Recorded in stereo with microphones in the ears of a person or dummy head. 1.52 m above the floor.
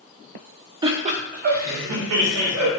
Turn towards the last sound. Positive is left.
turn(degrees=-75)  # may be behind; listen again after turning